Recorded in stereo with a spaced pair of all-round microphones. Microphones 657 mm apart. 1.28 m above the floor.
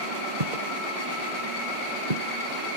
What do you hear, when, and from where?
0.4 s footsteps: 70° right (ahead or behind); by 2.3 s 75° right (ahead or behind)